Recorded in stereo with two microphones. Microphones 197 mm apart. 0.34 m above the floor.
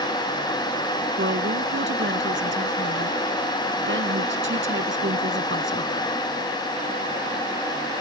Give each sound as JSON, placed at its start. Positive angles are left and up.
{"t": 1.2, "sound": "a woman speaking", "side_deg": -75}